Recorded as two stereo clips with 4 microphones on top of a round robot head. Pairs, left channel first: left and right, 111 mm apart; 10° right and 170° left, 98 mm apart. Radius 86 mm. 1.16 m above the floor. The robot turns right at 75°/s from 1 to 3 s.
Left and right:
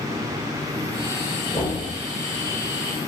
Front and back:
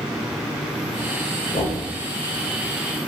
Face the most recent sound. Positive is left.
turn(degrees=140)